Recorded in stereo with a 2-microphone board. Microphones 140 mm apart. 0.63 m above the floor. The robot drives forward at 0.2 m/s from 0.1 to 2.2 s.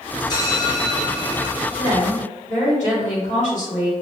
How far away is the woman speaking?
About 1.5 m.